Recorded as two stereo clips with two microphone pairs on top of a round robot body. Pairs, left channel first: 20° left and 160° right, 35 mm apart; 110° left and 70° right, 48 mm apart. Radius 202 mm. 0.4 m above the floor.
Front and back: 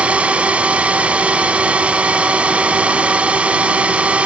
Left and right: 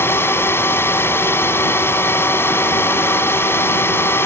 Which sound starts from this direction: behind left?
A drone, at 0.0 s.